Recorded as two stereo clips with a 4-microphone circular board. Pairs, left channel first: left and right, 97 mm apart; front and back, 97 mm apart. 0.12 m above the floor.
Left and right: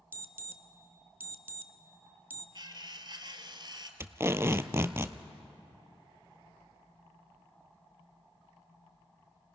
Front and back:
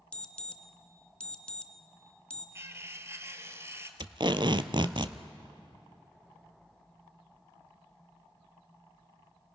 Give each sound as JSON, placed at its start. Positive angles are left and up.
{"t": 0.1, "sound": "an alarm", "azimuth_deg": -65, "distance_m": 0.8}
{"t": 2.5, "sound": "cutlery clinking", "azimuth_deg": -120, "distance_m": 1.3}
{"t": 4.0, "sound": "tape being pulled", "azimuth_deg": -150, "distance_m": 0.7}